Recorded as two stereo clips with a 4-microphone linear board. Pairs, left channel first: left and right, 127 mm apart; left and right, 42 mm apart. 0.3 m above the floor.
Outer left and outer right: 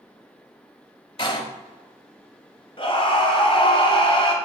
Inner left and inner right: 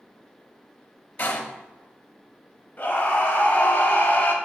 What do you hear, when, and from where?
1.2 s a door slam: 40° left (ahead or behind), 1.0 m
2.8 s a scream: 45° left (ahead or behind), 1.5 m